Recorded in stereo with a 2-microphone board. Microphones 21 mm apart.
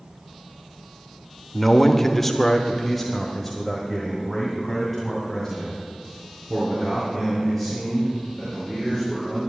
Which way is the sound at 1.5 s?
10° left (ahead or behind).